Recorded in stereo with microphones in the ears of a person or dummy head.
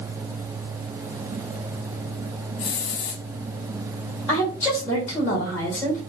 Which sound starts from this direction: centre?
A woman speaking, at 4.3 s.